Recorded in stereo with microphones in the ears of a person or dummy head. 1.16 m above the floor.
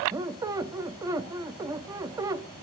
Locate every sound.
0.1 s a squeak: 20° right (ahead or behind), 0.8 m